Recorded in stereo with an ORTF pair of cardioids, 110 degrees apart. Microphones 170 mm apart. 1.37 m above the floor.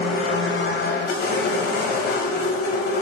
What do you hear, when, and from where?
0.0 s a machine running: 70° left, 1.2 m